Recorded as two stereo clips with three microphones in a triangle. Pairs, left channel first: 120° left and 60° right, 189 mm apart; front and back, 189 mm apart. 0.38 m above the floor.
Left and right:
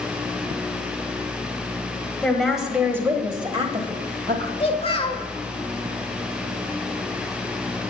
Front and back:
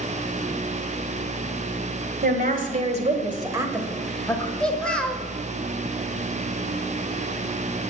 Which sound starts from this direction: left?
A child speaking, at 4.6 s.